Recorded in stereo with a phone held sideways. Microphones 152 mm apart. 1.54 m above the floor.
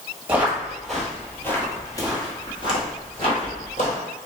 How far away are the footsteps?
About 1.6 m.